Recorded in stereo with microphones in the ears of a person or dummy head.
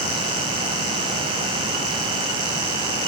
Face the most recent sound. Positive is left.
No sound to turn to.